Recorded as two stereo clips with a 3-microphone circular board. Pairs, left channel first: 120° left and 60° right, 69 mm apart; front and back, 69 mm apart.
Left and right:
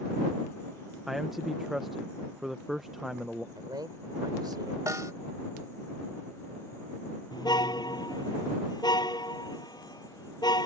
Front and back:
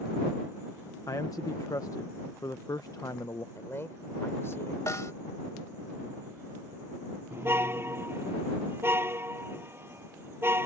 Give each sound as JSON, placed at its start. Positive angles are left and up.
{"t": 1.1, "sound": "a man speaking", "azimuth_deg": 25}
{"t": 3.5, "sound": "a man speaking", "azimuth_deg": -55}
{"t": 4.9, "sound": "a snare drum", "azimuth_deg": -35}
{"t": 7.3, "sound": "a car horn", "azimuth_deg": 125}